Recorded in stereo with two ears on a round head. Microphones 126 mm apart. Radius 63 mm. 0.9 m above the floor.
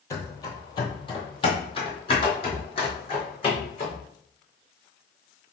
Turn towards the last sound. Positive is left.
turn(degrees=40)  # may be behind; listen again after turning